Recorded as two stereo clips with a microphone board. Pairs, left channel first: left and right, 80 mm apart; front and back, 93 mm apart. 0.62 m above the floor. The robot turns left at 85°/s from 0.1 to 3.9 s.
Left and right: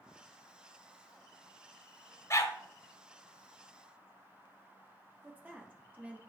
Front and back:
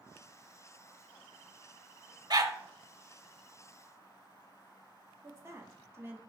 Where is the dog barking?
140° left, 0.7 m; by 2.6 s 120° left, 0.7 m.